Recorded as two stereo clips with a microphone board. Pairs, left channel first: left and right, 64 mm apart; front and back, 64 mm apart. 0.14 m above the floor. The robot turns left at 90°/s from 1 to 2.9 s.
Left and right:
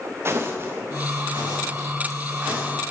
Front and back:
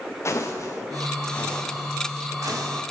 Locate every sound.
0.2 s footsteps: 40° right, 0.9 m; by 2.7 s straight behind, 2.5 m